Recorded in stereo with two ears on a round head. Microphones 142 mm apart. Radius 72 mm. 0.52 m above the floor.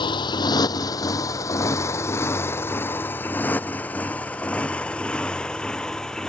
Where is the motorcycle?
30° left (ahead or behind); by 6.3 s 5° left (ahead or behind).